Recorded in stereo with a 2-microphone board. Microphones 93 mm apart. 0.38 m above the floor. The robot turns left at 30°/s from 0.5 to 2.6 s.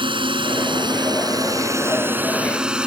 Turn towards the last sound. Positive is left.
turn(degrees=-10)  # may be behind; listen again after turning